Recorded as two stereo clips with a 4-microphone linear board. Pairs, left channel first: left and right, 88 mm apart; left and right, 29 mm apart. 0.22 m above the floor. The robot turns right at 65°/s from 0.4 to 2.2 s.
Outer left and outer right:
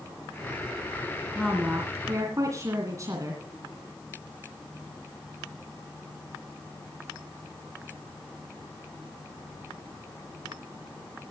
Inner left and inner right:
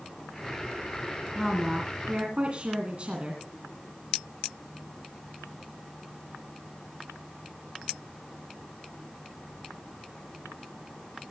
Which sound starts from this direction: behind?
A woman speaking, at 1.4 s.